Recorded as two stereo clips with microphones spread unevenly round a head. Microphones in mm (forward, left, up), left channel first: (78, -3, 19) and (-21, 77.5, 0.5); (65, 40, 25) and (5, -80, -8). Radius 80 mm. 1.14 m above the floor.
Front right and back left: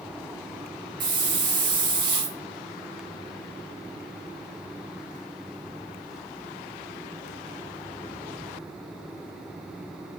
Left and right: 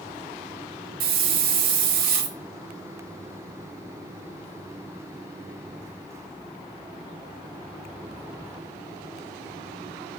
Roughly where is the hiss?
Behind right.